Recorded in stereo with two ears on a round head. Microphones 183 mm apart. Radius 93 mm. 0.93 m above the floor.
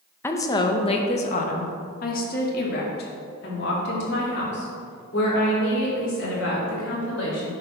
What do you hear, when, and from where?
0.2 s a woman speaking: 10° left (ahead or behind), 0.8 m; by 7.5 s 60° left (ahead or behind), 4.5 m